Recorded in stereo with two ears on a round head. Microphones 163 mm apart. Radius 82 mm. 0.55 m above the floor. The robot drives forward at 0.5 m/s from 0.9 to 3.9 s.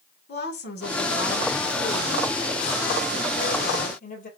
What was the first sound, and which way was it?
A woman speaking, 60° left (ahead or behind).